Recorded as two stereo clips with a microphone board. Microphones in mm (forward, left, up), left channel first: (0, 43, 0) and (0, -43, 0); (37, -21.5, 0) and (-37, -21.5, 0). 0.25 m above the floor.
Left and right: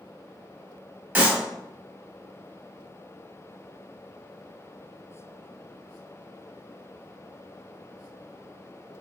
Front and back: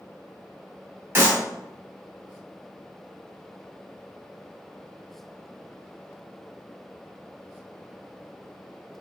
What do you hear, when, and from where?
1.1 s a clap: 145° right, 1.0 m